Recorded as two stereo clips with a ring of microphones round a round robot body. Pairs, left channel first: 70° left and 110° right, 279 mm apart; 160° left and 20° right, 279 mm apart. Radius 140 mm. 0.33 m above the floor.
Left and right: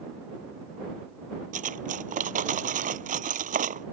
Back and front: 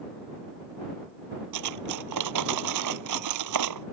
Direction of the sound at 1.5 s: 50° right.